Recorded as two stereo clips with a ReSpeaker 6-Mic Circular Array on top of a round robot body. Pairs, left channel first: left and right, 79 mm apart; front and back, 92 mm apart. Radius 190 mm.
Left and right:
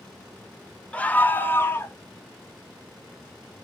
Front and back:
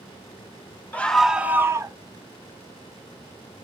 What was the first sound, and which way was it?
A scream, 40° left.